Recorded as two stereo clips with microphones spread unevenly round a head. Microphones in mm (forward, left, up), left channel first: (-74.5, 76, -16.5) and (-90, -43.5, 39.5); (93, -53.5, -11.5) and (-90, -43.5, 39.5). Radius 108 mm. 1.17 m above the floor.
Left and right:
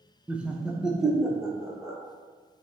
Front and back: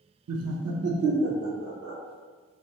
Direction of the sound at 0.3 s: 175° left.